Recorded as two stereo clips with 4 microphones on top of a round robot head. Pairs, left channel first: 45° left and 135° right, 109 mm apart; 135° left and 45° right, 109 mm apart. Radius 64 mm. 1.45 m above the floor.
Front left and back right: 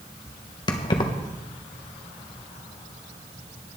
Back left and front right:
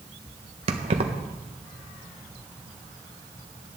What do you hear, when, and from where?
0.7 s keys jangling: 5° right, 1.0 m